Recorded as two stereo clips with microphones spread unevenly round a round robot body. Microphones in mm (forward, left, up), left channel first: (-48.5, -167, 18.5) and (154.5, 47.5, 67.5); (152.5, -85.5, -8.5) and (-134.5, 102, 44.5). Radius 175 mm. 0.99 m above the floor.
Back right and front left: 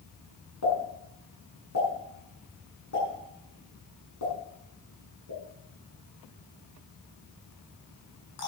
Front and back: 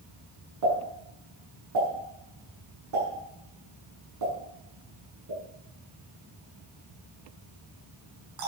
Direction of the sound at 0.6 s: Straight behind.